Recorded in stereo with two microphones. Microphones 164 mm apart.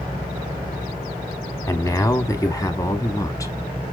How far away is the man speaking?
About 1.0 m.